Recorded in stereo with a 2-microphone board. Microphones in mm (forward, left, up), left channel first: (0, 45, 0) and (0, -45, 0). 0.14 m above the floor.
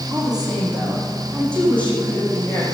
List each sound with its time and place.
0.1 s a woman speaking: 5° right (ahead or behind), 5 m; by 2.6 s 20° left (ahead or behind), 6.5 m